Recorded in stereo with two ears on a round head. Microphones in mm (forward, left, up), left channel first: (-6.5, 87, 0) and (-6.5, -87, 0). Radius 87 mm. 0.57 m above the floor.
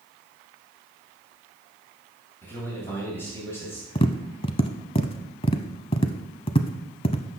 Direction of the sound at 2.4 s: 10° left (ahead or behind).